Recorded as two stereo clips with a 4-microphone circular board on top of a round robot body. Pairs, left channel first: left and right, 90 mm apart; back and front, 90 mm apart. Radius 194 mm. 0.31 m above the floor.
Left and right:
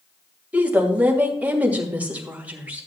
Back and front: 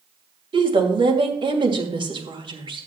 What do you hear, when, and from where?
0.5 s a woman speaking: 15° right, 2.5 m